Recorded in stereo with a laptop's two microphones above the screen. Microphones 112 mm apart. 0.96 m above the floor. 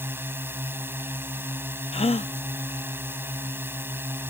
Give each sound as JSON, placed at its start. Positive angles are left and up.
{"t": 0.0, "sound": "a drone", "side_deg": -20}
{"t": 1.9, "sound": "a gasp", "side_deg": 60}